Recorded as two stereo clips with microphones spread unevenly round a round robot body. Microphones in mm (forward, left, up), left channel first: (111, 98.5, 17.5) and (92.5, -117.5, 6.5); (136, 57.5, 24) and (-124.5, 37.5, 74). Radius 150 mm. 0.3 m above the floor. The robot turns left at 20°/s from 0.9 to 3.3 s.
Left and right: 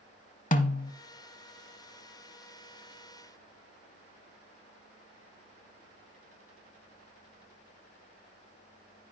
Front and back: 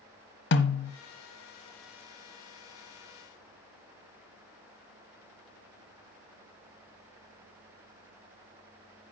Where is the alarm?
I don't hear an alarm.